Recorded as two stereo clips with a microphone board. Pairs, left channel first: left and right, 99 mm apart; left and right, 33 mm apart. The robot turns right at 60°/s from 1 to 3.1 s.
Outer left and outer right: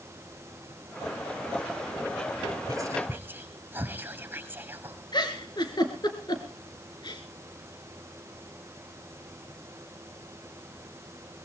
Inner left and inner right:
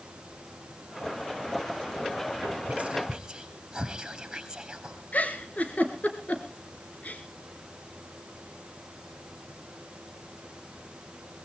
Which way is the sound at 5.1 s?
45° left (ahead or behind).